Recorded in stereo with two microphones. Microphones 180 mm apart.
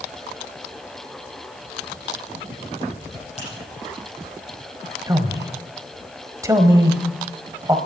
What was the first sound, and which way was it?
A finger snap, 35° left (ahead or behind).